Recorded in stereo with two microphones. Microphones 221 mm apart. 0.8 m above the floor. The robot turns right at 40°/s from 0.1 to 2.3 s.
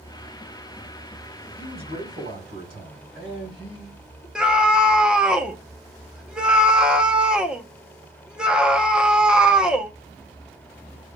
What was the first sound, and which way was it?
A man speaking, 25° right (ahead or behind).